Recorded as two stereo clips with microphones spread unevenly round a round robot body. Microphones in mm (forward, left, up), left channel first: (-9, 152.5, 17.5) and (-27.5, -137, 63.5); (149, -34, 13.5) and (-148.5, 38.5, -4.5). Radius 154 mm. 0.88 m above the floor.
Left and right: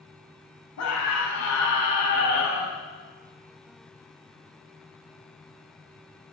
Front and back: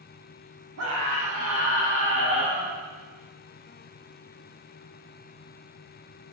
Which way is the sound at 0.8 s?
120° left.